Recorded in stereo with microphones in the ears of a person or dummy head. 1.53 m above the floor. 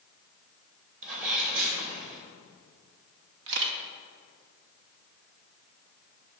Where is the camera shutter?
70° right (ahead or behind), 0.9 m.